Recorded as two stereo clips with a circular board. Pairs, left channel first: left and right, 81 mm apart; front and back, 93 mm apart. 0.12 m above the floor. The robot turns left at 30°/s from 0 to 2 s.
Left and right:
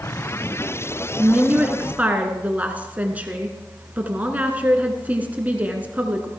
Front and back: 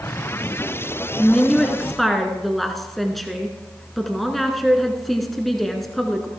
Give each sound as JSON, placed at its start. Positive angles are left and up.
{"t": 1.2, "sound": "a woman speaking", "azimuth_deg": -60, "distance_m": 1.3}